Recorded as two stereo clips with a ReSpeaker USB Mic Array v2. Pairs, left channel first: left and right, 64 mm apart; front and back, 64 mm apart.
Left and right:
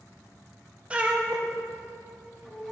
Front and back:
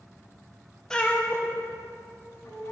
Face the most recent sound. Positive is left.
turn(degrees=0)